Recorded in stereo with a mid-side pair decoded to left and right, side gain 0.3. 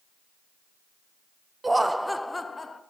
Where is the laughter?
30° right, 0.7 m; by 2.8 s 40° left, 1.1 m.